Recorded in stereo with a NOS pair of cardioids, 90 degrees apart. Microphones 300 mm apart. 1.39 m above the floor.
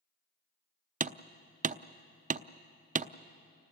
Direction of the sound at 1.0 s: 25° right.